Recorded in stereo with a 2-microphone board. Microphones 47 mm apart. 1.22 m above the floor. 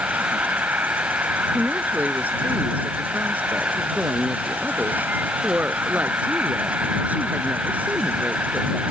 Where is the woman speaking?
35° right (ahead or behind).